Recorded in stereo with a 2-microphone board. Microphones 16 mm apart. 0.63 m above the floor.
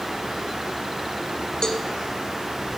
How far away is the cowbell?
About 1.8 m.